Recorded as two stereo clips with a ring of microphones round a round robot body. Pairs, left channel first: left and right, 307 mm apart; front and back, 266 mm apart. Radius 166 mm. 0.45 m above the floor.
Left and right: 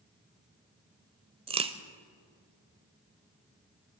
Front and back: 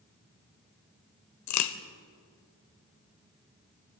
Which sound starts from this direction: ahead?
A crack, at 1.5 s.